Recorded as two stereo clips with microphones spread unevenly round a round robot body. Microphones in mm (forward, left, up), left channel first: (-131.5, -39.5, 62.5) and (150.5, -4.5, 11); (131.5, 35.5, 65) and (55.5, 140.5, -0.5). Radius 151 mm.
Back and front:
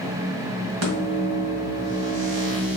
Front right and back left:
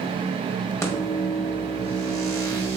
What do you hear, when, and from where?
0.8 s a microwave: 30° left, 1.5 m